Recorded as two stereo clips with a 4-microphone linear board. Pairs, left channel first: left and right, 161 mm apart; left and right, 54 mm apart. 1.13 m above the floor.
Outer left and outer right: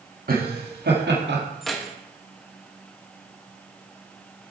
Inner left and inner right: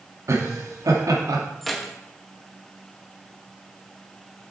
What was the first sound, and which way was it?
Laughter, 60° right (ahead or behind).